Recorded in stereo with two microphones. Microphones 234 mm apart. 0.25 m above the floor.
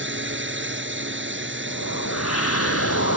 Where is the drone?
55° right (ahead or behind).